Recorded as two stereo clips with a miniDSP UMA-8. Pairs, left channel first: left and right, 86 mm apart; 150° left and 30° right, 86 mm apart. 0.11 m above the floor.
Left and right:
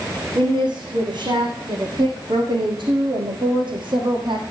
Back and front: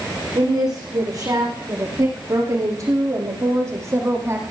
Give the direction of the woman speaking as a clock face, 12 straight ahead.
2 o'clock.